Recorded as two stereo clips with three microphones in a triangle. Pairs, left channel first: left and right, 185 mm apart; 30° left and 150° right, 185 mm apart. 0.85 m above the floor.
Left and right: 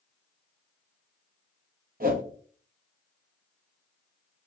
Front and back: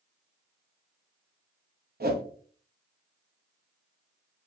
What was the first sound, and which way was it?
A whoosh, 125° right.